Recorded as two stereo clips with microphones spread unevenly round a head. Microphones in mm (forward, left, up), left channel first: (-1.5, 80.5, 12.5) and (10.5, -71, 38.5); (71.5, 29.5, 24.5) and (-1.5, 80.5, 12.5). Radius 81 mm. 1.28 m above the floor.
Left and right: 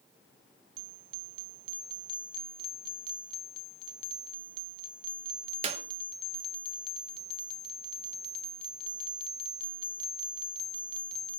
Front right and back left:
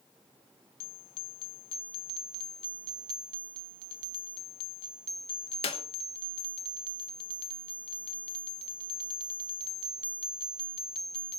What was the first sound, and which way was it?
A clap, 40° right.